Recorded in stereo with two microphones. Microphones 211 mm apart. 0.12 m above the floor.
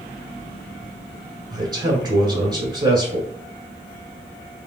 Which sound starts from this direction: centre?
A man speaking, at 1.5 s.